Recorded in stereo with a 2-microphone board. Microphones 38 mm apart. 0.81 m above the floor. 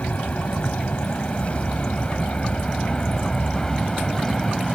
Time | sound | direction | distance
0.0 | an aircraft | 40° left (ahead or behind) | ?